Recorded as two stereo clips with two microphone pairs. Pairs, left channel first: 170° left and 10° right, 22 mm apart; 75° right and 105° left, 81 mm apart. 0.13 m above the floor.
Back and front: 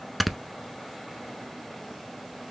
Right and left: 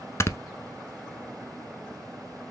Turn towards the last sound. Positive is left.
turn(degrees=-105)